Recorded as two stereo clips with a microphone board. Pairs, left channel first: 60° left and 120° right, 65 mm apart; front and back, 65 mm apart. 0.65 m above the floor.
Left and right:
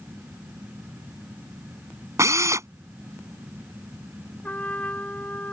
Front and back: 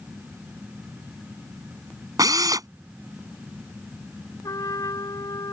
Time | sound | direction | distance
2.2 | a drill | 160° right | ?
4.4 | a trumpet | 5° right | ?